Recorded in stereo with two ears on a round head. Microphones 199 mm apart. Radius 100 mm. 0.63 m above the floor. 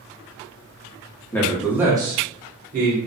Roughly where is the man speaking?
Centre.